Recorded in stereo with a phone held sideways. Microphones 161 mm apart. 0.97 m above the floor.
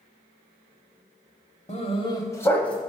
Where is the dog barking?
45° left (ahead or behind), 1.1 m; by 2.8 s 5° left (ahead or behind), 1.5 m.